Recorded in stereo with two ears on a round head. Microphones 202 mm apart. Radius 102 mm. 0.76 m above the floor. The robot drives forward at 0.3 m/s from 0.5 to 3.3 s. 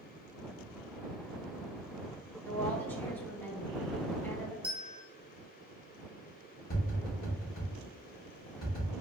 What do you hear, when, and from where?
2.5 s a woman speaking: 10° left (ahead or behind), 1.0 m
4.6 s a bell: 5° right (ahead or behind), 0.6 m
6.7 s tapping: 45° left (ahead or behind), 1.6 m